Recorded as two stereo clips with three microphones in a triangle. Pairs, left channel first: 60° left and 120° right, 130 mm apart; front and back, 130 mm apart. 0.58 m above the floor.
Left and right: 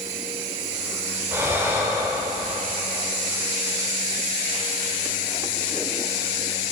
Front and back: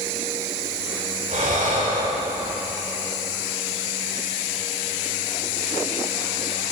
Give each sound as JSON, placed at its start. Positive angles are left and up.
{"t": 1.3, "sound": "breathing", "azimuth_deg": 170, "distance_m": 1.5}